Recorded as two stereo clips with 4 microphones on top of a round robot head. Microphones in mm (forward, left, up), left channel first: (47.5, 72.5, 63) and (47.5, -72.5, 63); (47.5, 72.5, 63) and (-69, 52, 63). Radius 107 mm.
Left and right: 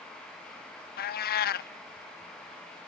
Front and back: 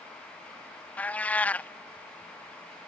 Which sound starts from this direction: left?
A cat meowing, at 1.0 s.